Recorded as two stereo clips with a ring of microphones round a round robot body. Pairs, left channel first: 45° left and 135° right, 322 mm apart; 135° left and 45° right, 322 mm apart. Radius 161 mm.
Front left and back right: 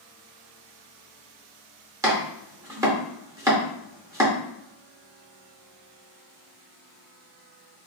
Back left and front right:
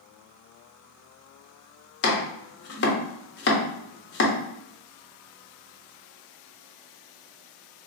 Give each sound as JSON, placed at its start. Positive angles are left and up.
{"t": 2.0, "sound": "chopping", "azimuth_deg": 150, "distance_m": 0.7}